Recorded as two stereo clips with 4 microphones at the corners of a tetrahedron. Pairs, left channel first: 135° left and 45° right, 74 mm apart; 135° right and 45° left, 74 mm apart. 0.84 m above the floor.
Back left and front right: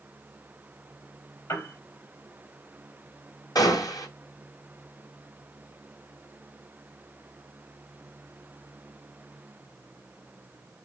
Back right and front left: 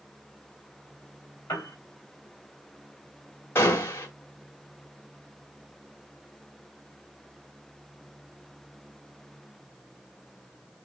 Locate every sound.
1.5 s a piano: 175° left, 4 m
3.5 s a gunshot: 170° left, 1.7 m